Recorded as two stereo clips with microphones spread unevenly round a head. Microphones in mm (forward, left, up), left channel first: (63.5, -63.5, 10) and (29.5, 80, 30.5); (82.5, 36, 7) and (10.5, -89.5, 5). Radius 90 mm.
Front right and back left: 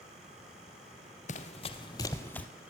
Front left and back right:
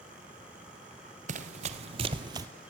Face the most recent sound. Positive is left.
turn(degrees=-170)